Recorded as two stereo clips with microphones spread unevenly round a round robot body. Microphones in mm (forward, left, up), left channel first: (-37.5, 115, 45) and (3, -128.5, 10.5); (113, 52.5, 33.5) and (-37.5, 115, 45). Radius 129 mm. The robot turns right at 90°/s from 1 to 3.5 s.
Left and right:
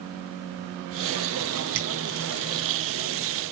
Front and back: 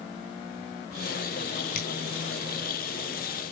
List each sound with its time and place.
1.8 s a finger snap: 40° right, 4 m; by 1.9 s 30° right, 4 m